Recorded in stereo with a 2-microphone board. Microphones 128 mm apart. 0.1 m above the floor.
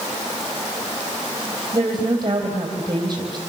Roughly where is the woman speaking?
Right.